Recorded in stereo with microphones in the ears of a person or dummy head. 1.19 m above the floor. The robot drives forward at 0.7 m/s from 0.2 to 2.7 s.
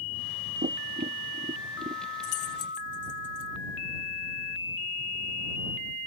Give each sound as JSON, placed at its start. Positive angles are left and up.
{"t": 0.6, "sound": "tapping", "side_deg": -30}
{"t": 2.2, "sound": "keys jangling", "side_deg": 85}